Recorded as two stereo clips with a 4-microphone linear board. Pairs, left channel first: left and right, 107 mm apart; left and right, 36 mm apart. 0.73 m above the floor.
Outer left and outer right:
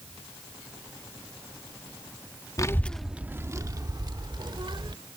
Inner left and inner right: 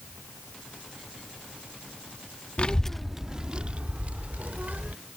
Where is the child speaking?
35° left (ahead or behind); by 5.0 s 55° right (ahead or behind).